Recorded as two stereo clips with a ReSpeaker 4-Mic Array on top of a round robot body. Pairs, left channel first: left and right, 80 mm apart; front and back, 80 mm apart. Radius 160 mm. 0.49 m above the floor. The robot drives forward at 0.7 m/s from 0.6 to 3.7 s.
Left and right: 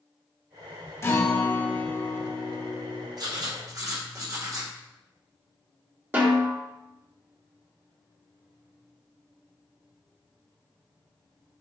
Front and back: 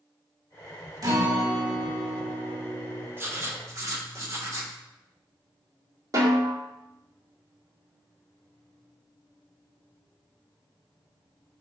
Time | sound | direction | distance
1.0 | a guitar | 145° left | 1.9 m
3.2 | writing | 120° right | 1.5 m
6.1 | a snare drum | 150° right | 2 m